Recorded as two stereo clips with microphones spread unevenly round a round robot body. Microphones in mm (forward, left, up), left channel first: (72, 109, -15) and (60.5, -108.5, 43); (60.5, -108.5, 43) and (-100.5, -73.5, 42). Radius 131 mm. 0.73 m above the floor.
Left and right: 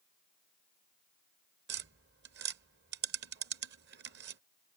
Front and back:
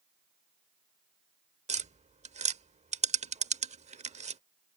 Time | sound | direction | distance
1.7 | tapping | 140° right | ?